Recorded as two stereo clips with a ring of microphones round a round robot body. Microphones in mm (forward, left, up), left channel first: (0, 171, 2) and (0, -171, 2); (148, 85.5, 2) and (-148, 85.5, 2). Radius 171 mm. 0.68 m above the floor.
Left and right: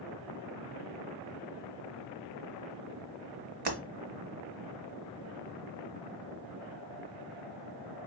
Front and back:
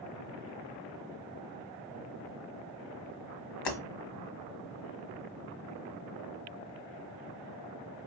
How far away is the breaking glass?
About 1.3 m.